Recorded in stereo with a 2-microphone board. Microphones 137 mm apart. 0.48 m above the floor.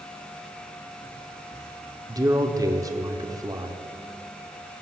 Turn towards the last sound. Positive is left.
turn(degrees=-25)  # may be behind; listen again after turning